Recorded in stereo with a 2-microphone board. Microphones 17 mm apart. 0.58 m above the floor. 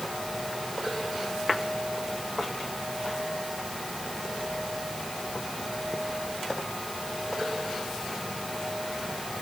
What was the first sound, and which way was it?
Only background noise.